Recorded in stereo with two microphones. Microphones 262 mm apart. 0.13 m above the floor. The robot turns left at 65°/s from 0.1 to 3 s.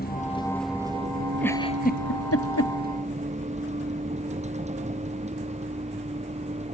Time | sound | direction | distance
0.0 | a vehicle | 35° left (ahead or behind) | ?
1.4 | a giggle | 5° left (ahead or behind) | ?